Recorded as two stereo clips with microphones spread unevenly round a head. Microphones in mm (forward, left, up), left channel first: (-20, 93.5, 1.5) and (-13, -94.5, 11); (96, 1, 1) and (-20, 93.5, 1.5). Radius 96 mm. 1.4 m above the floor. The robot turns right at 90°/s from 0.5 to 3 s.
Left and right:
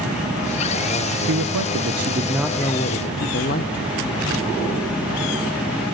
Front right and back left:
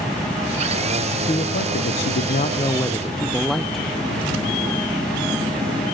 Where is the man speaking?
105° right, 0.8 m; by 4.0 s 50° left, 0.8 m.